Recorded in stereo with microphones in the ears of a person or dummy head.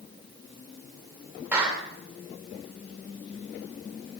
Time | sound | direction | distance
1.5 | a clap | 10° right (ahead or behind) | 2.5 m